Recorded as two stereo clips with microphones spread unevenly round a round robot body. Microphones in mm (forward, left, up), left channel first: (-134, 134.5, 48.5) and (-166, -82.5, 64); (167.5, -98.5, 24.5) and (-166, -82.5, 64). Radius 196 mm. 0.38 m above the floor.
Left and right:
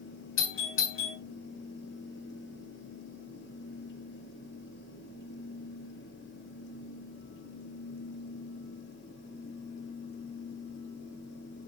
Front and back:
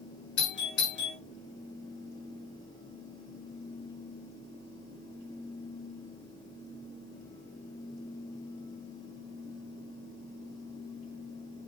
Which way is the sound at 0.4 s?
55° left.